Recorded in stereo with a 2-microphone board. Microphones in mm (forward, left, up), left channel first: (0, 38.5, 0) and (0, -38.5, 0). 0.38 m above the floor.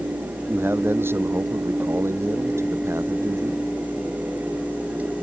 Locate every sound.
0.5 s a man speaking: 30° right (ahead or behind); by 3.6 s 40° right (ahead or behind)